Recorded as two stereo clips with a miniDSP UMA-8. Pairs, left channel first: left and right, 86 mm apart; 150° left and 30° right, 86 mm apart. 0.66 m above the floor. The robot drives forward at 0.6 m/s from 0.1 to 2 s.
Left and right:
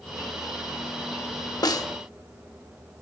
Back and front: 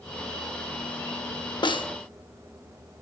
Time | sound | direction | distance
1.6 | a snare drum | 130° left | 0.6 m